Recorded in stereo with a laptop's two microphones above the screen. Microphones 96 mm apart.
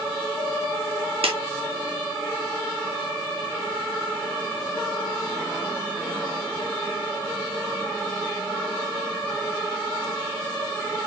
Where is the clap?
80° right, 2 m.